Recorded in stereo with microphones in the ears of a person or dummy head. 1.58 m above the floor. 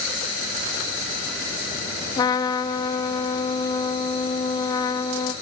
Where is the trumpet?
20° left (ahead or behind), 1.0 m.